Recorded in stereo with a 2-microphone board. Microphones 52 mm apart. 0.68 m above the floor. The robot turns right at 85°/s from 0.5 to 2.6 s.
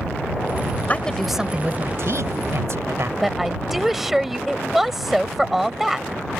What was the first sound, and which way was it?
A woman speaking, 145° left.